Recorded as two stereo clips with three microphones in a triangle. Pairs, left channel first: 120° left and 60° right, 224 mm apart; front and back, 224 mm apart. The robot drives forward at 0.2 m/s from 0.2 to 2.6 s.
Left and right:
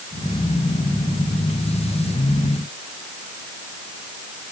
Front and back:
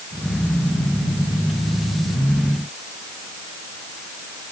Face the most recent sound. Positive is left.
No sound to turn to.